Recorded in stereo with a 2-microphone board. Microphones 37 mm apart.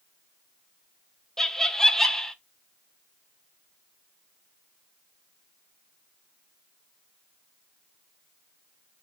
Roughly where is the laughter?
Centre.